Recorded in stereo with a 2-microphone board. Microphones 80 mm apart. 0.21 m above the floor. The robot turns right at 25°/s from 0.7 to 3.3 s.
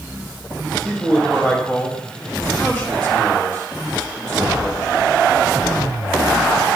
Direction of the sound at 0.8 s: 10° left (ahead or behind).